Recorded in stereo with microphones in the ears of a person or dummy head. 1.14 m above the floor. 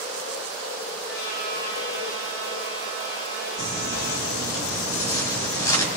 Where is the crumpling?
20° left (ahead or behind), 4.5 m.